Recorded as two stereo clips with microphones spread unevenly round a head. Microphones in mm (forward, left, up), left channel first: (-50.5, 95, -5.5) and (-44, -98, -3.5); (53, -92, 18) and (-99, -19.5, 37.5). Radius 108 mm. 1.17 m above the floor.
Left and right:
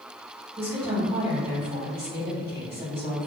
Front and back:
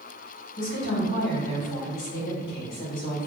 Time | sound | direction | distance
0.6 | a woman speaking | 20° right | 1.8 m